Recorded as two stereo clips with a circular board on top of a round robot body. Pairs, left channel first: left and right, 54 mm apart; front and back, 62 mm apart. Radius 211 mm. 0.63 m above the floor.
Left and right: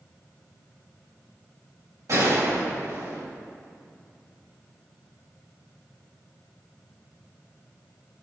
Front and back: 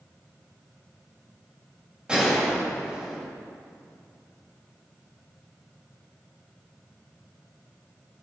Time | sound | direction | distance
2.1 | a gunshot | 105° right | 3.5 m